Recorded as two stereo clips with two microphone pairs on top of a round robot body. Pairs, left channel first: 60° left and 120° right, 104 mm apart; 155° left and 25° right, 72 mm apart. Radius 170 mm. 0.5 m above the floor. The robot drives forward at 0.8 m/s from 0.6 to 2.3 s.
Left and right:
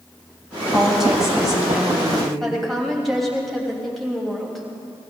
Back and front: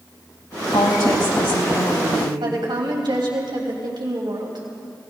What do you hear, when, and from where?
0.7 s a woman speaking: 150° left, 4.5 m; by 2.3 s 155° left, 5.5 m
2.4 s a woman speaking: 30° right, 3 m